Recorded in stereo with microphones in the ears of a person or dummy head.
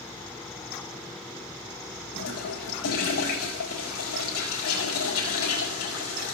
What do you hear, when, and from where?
2.1 s a toilet flushing: 85° left, 4.5 m